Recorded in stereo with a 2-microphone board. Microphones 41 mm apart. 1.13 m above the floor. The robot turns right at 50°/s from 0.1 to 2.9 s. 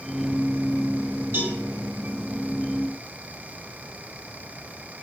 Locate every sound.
1.3 s a cowbell: 70° right (ahead or behind), 7 m; by 1.6 s 60° right (ahead or behind), 7 m